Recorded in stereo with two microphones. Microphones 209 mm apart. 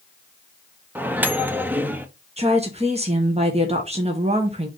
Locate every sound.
0.9 s a microwave: 10° right (ahead or behind), 0.8 m
2.4 s a woman speaking: 30° right (ahead or behind), 1.2 m